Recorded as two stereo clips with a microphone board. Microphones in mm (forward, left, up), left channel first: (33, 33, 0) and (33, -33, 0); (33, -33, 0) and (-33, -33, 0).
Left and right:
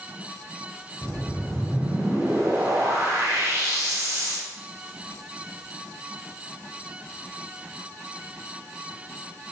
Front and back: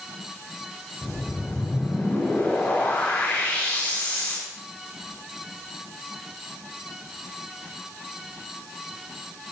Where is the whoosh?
60° right, 3.5 m.